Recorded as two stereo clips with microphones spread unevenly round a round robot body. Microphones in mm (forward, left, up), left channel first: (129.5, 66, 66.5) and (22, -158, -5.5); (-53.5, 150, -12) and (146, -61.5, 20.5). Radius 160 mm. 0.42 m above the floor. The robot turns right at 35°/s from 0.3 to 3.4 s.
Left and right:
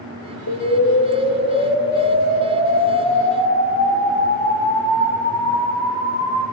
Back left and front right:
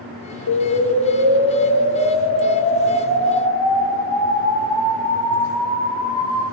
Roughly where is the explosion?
Left.